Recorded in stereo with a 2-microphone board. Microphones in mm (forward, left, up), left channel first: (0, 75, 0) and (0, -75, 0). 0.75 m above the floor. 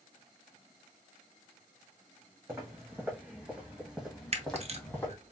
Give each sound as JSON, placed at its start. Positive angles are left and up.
{"t": 2.5, "sound": "footsteps", "side_deg": -20, "distance_m": 2.5}
{"t": 4.3, "sound": "a camera shutter", "side_deg": -45, "distance_m": 0.7}